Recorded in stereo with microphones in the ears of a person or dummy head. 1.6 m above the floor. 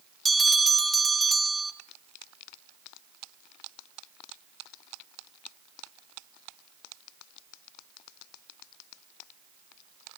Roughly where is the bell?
Centre.